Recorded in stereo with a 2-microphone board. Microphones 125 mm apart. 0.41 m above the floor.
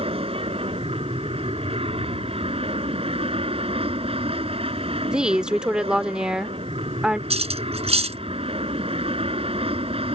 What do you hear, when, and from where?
0.0 s an aircraft: 50° right (ahead or behind)
5.1 s a woman speaking: 10° right (ahead or behind)
7.3 s cutlery clinking: 55° right (ahead or behind)